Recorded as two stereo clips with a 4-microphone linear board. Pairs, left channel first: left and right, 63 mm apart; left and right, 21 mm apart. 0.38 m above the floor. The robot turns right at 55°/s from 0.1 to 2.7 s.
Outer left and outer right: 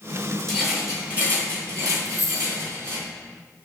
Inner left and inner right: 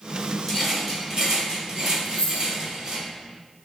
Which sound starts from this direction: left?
A dropped coin, at 2.0 s.